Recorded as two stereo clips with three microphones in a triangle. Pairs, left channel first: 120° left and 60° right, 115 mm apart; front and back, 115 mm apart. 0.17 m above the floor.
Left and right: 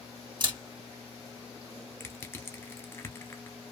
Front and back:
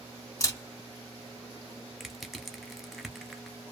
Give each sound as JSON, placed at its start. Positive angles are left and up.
{"t": 0.4, "sound": "a camera shutter", "azimuth_deg": -50, "distance_m": 2.0}
{"t": 2.0, "sound": "crushing", "azimuth_deg": 90, "distance_m": 0.6}